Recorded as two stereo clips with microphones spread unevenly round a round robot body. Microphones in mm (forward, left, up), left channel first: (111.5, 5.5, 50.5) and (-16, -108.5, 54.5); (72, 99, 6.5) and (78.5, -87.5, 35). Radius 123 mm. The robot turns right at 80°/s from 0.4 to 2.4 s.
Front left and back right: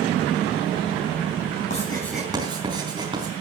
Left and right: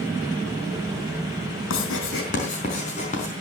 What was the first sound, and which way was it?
Writing, 95° left.